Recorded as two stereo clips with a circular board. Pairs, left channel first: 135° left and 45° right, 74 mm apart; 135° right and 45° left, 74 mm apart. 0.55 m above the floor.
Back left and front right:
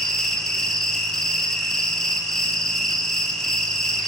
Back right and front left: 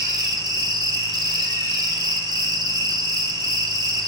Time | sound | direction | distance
0.0 | an insect | 50° left | 1.1 m